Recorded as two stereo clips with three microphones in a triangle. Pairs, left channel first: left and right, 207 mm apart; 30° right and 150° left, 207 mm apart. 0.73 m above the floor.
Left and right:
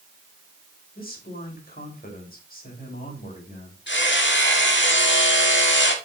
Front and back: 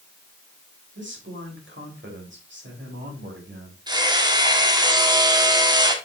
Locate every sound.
0.9 s a man speaking: 130° left, 4 m
3.9 s hammering: 85° left, 1.5 m